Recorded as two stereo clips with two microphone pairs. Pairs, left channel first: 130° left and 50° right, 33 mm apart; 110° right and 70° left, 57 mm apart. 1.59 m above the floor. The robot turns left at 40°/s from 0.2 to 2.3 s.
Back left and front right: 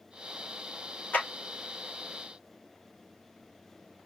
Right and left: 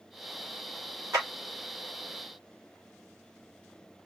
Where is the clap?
95° left, 3.5 m; by 1.3 s 90° left, 3.5 m.